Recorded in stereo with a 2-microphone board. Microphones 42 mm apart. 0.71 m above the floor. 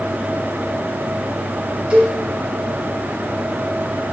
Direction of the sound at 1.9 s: 40° right (ahead or behind).